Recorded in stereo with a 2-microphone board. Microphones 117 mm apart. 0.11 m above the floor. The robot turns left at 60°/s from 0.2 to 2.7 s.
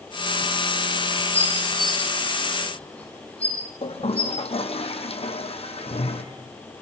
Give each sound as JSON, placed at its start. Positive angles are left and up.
{"t": 1.3, "sound": "dishes clattering", "side_deg": -70, "distance_m": 9.5}
{"t": 3.8, "sound": "a toilet flushing", "side_deg": 55, "distance_m": 4.0}